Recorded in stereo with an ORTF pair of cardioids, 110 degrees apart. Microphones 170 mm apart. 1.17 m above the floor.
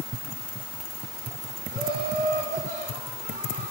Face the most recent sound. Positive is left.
turn(degrees=-60)